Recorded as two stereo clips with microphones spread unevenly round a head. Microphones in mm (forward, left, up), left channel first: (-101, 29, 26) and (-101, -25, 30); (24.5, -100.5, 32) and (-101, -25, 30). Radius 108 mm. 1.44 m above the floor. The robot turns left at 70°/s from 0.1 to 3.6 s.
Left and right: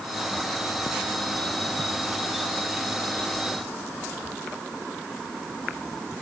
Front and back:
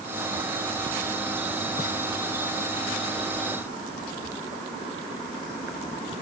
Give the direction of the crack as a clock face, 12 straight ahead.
I don't hear a crack.